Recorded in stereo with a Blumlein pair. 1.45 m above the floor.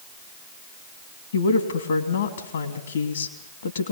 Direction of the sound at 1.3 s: 65° left.